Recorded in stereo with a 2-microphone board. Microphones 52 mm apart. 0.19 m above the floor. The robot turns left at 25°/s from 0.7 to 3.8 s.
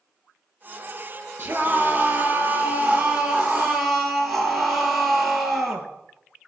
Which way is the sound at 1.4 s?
120° right.